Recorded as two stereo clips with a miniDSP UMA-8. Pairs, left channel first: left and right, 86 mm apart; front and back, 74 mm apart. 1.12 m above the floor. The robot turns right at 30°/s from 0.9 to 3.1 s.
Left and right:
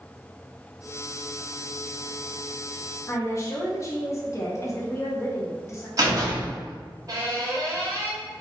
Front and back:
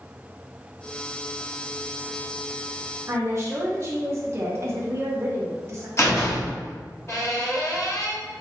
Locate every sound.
3.1 s a woman speaking: 135° left, 0.9 m; by 5.9 s 140° left, 0.9 m
6.0 s a door slam: 45° right, 1.2 m